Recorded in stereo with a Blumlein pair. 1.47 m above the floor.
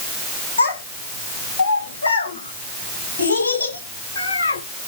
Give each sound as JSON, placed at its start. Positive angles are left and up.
{"t": 0.6, "sound": "a child speaking", "azimuth_deg": 65, "distance_m": 6.0}